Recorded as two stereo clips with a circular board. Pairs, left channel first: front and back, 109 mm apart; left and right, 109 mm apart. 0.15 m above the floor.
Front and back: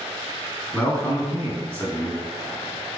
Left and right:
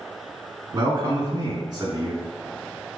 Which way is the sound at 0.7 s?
70° right.